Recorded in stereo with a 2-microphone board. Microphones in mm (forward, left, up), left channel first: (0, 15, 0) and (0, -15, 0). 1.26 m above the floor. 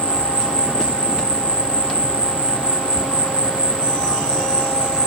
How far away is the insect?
About 1.7 m.